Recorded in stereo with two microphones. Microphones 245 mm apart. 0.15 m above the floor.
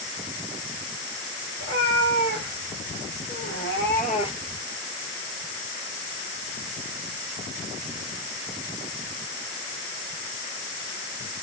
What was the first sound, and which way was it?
A cat meowing, 85° left.